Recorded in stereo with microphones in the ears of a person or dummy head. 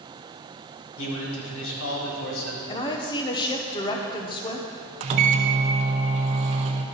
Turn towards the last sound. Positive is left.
turn(degrees=-35)  # may be behind; listen again after turning